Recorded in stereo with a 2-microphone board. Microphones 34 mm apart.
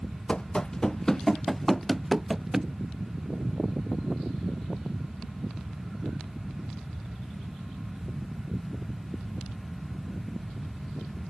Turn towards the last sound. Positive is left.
turn(degrees=-15)  # may be behind; listen again after turning